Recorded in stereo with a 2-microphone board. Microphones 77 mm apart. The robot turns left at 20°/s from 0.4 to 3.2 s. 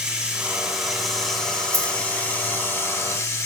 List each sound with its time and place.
0.0 s running water: 170° right, 1.9 m; by 3.5 s 135° left, 1.9 m
1.7 s a dropped coin: 55° right (ahead or behind), 1.4 m; by 2.0 s 60° right (ahead or behind), 1.4 m